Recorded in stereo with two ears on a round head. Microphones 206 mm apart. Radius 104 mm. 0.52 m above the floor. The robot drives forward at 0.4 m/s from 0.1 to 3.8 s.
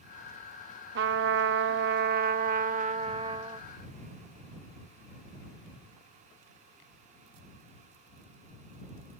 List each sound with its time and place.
0.9 s a trumpet: 50° right (ahead or behind); by 3.7 s 25° right (ahead or behind)